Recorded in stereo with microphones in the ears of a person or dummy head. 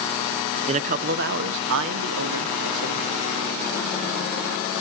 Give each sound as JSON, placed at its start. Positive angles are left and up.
{"t": 0.7, "sound": "a man speaking", "side_deg": -30, "distance_m": 0.8}